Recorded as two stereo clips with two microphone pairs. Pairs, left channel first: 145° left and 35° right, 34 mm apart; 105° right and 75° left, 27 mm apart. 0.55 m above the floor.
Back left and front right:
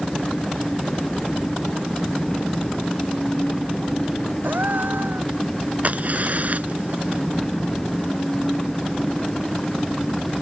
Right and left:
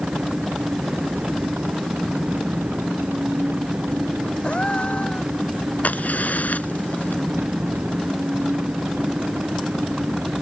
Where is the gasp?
50° right.